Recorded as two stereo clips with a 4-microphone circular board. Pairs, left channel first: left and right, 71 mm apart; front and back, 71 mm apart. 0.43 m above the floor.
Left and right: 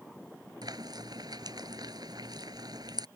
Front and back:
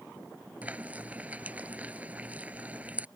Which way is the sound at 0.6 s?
110° right.